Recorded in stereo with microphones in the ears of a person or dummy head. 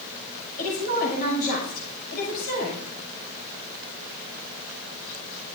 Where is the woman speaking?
50° left (ahead or behind), 6.5 m.